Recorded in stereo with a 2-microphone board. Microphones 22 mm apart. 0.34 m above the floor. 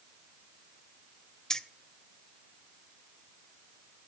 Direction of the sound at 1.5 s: 30° left (ahead or behind).